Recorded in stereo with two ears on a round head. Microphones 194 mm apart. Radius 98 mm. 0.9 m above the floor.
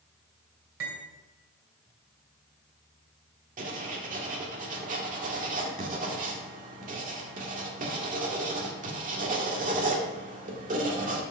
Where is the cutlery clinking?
70° right (ahead or behind), 2.5 m.